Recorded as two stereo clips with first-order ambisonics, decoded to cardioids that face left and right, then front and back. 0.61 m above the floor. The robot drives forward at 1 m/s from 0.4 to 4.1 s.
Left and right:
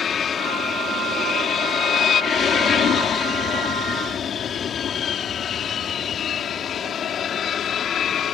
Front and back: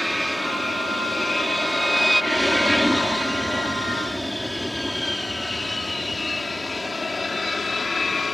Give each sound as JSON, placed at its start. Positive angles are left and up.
{"t": 0.0, "sound": "an aircraft", "azimuth_deg": 90}